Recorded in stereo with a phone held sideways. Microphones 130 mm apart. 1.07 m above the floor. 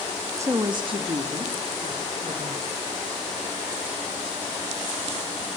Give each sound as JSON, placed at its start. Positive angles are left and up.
{"t": 0.4, "sound": "a woman speaking", "side_deg": -20, "distance_m": 1.6}